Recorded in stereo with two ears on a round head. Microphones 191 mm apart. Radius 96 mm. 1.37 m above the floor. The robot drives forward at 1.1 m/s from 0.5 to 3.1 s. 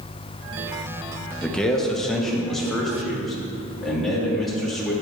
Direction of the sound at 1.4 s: 5° left (ahead or behind).